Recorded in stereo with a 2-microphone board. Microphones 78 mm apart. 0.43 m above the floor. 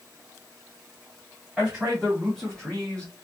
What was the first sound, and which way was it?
A man speaking, 5° right (ahead or behind).